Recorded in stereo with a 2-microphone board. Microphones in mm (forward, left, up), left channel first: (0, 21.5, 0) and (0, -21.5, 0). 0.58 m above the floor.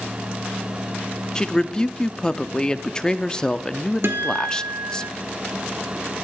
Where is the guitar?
60° right (ahead or behind), 2 m.